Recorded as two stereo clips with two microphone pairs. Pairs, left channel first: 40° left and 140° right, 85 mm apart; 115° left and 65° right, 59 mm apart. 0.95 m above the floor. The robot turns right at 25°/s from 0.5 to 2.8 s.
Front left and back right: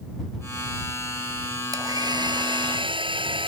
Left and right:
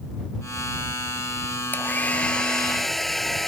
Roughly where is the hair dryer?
Behind.